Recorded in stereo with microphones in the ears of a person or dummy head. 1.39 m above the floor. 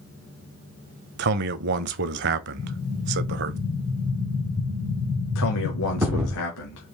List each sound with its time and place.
1.2 s a man speaking: 55° right (ahead or behind), 0.5 m
2.6 s an explosion: 15° right (ahead or behind), 1.2 m
5.3 s a man speaking: 80° left, 0.9 m